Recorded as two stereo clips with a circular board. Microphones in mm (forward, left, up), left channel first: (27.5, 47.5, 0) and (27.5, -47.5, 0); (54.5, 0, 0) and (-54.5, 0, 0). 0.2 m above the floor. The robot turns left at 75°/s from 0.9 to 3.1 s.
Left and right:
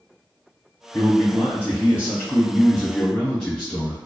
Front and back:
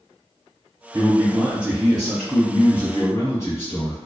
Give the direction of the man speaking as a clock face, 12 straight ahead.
6 o'clock.